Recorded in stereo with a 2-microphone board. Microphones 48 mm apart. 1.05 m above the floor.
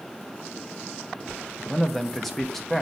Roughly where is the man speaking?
Centre.